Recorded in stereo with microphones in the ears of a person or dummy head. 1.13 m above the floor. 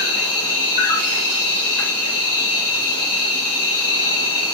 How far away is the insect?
About 1.0 m.